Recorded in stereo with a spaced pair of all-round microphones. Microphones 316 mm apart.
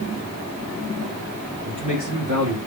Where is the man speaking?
60° right (ahead or behind), 3 m.